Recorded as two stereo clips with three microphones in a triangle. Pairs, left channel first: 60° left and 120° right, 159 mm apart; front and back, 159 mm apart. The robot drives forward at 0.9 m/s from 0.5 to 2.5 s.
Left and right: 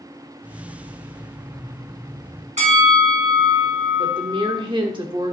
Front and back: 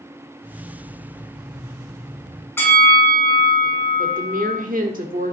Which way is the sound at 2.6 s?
75° right.